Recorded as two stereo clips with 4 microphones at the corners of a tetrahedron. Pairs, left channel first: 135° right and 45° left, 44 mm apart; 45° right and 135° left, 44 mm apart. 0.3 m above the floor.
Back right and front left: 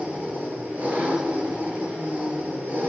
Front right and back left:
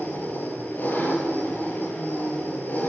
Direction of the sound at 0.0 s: Straight ahead.